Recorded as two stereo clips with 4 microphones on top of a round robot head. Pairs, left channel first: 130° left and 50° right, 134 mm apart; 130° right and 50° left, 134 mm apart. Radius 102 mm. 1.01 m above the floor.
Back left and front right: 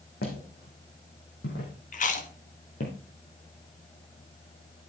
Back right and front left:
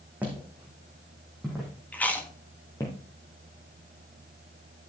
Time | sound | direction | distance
0.2 | footsteps | 130° left | 4.5 m
1.9 | chewing | 150° left | 1.8 m